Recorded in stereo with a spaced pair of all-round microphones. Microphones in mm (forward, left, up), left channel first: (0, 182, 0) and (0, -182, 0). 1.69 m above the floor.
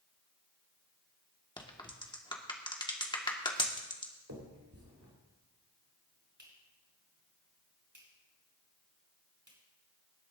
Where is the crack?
10° left (ahead or behind), 1.5 m.